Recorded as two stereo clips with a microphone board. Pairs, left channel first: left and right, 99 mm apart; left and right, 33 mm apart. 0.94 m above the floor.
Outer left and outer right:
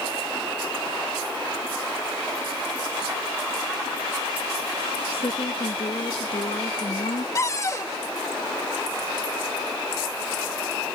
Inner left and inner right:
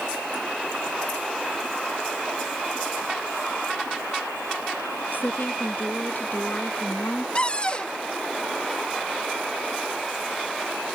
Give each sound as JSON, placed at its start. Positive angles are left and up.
{"t": 5.1, "sound": "a woman speaking", "side_deg": 70}
{"t": 7.3, "sound": "a cupboard door", "side_deg": 35}